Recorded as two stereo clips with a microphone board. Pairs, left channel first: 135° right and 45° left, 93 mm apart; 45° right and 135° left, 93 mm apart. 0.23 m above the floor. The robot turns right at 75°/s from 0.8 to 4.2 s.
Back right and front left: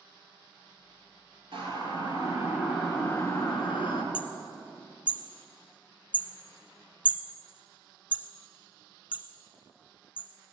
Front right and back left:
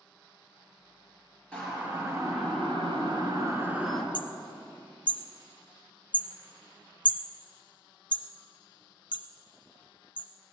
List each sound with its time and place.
1.5 s a siren: 35° left, 3.5 m; by 4.0 s 130° right, 2.5 m
4.1 s hammering: 35° right, 1.2 m